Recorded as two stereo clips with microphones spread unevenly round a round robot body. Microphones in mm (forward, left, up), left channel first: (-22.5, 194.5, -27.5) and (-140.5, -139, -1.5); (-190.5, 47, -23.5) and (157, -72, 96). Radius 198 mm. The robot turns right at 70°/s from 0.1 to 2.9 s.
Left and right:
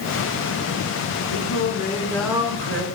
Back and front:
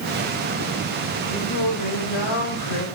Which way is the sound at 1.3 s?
95° left.